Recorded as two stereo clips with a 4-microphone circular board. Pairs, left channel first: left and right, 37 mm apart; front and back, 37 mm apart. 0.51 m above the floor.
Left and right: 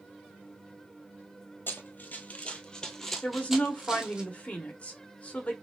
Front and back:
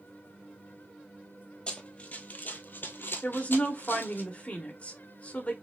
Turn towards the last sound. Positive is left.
turn(degrees=45)